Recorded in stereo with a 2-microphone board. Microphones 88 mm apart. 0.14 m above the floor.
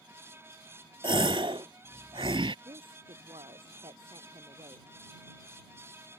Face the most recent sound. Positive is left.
turn(degrees=-80)